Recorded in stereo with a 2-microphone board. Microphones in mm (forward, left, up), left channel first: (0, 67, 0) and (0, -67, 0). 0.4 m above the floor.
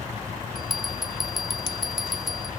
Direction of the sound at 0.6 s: Centre (ahead or behind).